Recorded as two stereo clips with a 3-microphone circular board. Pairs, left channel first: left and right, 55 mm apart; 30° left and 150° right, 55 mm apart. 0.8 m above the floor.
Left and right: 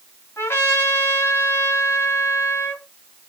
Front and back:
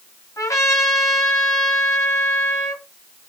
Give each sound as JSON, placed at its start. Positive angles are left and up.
{"t": 0.4, "sound": "a trumpet", "azimuth_deg": 45, "distance_m": 1.8}